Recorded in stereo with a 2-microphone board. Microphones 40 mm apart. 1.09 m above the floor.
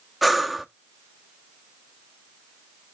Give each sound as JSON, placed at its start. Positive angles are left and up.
{"t": 0.2, "sound": "breathing", "side_deg": 0, "distance_m": 0.6}